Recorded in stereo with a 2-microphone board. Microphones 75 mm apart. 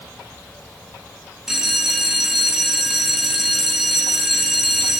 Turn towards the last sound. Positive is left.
turn(degrees=-5)  # may be behind; listen again after turning